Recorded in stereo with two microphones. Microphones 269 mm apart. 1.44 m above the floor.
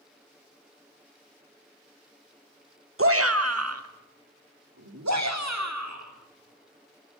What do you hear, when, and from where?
3.0 s a shout: 50° right (ahead or behind), 1.4 m; by 7.2 s 85° right, 4.5 m